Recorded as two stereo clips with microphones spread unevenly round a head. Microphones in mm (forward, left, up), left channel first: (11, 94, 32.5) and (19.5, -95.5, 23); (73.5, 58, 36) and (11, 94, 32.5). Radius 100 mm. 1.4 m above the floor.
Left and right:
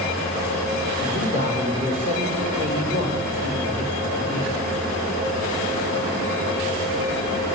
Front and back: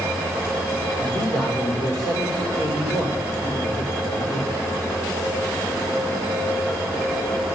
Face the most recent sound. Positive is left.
turn(degrees=-40)